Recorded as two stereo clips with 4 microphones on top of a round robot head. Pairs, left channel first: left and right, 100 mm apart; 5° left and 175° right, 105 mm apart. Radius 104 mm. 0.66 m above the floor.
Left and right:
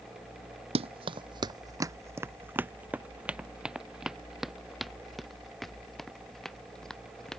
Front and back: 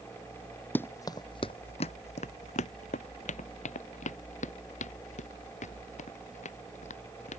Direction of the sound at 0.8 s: 70° right.